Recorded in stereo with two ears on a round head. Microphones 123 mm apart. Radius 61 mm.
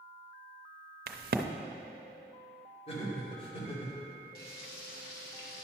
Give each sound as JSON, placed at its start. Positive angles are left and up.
{"t": 1.1, "sound": "a crack", "side_deg": -75, "distance_m": 0.6}
{"t": 2.9, "sound": "laughter", "side_deg": 45, "distance_m": 2.5}
{"t": 4.3, "sound": "frying", "side_deg": 80, "distance_m": 1.5}